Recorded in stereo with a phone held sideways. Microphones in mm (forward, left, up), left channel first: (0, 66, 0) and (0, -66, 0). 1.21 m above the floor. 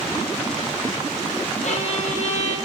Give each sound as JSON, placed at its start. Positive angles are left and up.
{"t": 1.6, "sound": "a violin", "side_deg": 65, "distance_m": 0.6}